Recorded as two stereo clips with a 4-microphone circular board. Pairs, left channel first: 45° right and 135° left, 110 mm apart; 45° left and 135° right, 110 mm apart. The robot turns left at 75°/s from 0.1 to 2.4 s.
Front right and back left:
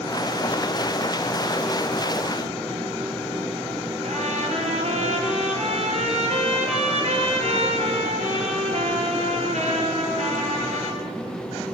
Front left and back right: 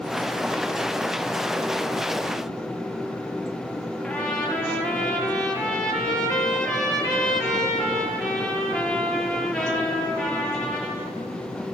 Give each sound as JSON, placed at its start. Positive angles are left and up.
{"t": 4.0, "sound": "a trumpet", "azimuth_deg": 130, "distance_m": 5.0}